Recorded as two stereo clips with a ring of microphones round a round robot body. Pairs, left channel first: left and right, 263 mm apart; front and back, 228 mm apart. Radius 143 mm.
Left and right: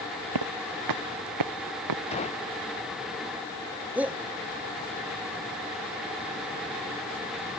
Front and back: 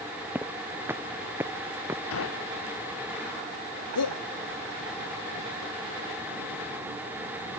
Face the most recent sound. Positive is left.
turn(degrees=-5)